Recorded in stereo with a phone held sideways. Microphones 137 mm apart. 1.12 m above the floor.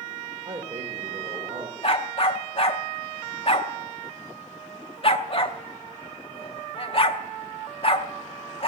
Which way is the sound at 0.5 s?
45° right (ahead or behind).